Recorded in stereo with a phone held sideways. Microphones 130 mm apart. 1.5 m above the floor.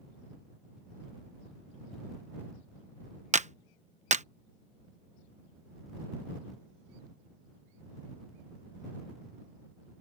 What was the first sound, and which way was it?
A clap, 65° right (ahead or behind).